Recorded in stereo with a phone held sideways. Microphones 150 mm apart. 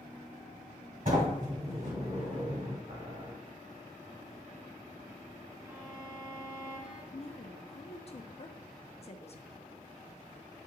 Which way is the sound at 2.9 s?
55° right (ahead or behind).